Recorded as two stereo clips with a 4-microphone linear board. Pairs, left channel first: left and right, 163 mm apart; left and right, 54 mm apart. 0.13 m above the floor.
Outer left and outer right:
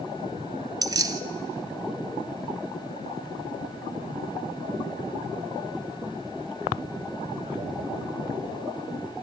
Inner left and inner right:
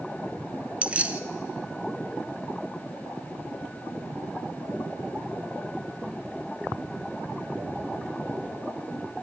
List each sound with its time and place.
0.8 s keys jangling: 25° right (ahead or behind), 0.8 m